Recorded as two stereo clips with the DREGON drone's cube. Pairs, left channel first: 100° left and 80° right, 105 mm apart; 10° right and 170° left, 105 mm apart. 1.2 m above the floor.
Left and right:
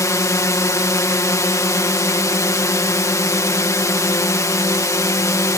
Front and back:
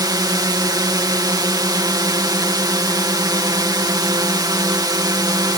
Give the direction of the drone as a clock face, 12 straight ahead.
7 o'clock.